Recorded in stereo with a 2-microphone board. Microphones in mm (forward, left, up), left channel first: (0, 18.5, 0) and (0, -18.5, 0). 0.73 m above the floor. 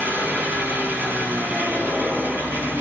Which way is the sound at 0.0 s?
85° right.